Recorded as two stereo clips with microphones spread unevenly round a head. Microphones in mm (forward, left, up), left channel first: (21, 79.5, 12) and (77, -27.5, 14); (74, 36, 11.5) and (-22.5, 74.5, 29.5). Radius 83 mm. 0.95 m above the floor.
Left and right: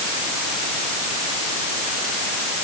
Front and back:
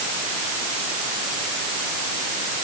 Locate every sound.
Only background noise.